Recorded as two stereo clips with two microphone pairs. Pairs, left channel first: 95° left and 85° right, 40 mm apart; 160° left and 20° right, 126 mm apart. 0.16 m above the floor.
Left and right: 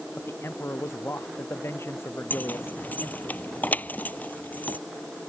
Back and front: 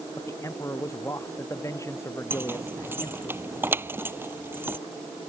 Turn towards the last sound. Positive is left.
turn(degrees=50)